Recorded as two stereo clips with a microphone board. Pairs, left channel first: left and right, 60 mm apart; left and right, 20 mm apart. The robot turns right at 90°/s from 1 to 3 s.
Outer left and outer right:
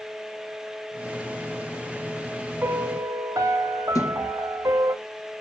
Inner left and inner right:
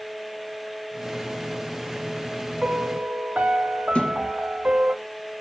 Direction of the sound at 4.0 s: 75° left (ahead or behind).